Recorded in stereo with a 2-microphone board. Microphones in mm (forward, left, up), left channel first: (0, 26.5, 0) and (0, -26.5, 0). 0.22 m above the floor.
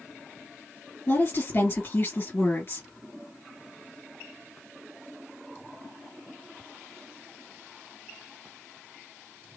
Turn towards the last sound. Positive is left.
turn(degrees=50)  # may be behind; listen again after turning